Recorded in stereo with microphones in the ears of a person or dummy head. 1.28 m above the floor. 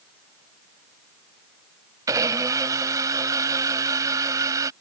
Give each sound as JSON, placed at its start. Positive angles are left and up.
{"t": 2.1, "sound": "a blender", "side_deg": -15}